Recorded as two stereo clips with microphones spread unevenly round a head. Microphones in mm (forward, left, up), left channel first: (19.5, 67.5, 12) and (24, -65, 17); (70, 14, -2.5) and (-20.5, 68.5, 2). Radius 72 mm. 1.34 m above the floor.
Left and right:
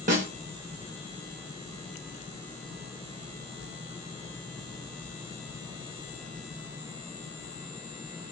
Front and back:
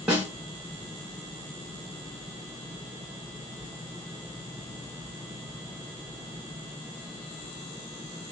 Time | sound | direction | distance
0.1 | a snare drum | 125° right | 0.8 m